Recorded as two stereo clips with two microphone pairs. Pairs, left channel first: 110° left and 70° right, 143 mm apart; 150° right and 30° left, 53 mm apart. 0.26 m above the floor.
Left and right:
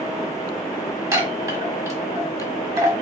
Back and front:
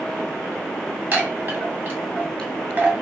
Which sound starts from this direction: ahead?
A chime, at 1.1 s.